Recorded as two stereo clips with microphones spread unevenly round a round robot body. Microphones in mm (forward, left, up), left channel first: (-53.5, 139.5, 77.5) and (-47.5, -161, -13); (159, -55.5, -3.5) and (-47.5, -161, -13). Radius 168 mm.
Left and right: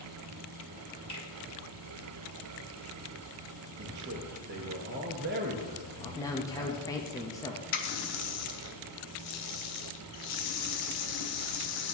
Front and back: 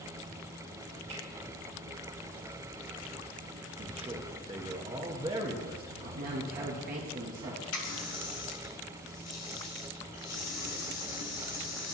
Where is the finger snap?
170° left, 2.5 m.